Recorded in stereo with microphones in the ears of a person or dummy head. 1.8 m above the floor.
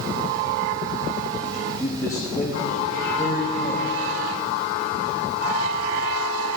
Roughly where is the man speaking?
Centre.